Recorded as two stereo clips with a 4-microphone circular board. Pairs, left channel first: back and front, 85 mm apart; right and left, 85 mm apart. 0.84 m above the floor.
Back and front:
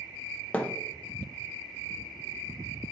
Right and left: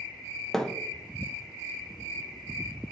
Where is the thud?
160° right, 0.5 m.